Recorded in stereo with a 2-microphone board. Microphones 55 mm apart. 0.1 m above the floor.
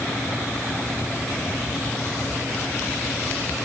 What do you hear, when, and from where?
Only background noise.